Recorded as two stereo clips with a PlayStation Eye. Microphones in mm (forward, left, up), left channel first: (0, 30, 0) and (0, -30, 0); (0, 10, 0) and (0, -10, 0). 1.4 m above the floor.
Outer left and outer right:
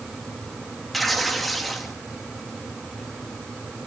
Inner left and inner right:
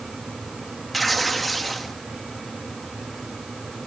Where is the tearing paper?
Centre (ahead or behind), 2.5 m.